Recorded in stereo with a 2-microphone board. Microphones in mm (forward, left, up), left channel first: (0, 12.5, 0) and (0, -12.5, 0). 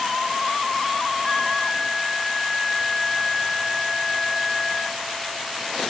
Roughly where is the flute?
Left.